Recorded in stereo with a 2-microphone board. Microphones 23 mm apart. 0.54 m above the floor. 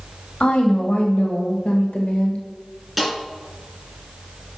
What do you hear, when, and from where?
0.4 s a woman speaking: 70° left (ahead or behind), 2.5 m; by 2.4 s 60° left (ahead or behind), 1.5 m
3.0 s a snare drum: 5° right (ahead or behind), 3.5 m